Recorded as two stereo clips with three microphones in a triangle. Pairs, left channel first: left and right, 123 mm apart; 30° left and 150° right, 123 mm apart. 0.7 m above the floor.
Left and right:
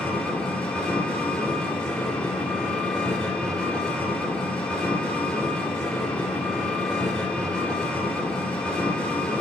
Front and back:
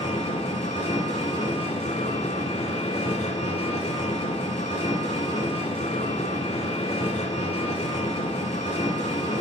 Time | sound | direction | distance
0.0 | an engine running | 10° left | 2.5 m